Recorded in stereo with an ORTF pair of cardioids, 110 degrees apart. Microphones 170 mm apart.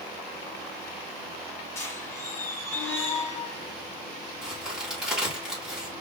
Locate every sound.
1.8 s a squeak: 15° left, 2.5 m
4.4 s a crack: 5° right, 3 m